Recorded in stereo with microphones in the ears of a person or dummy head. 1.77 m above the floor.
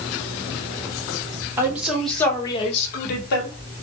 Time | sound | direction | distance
1.6 | a woman speaking | 15° right (ahead or behind) | 1.1 m